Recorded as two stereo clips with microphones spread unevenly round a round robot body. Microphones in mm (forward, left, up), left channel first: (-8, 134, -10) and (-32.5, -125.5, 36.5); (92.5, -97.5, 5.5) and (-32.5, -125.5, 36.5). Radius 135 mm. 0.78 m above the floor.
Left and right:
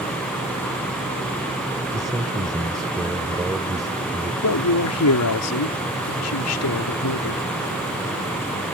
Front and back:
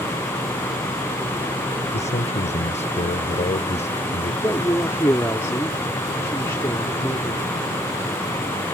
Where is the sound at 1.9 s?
15° right.